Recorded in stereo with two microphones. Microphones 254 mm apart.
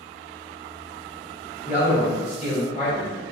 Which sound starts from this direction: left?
A man speaking, at 1.6 s.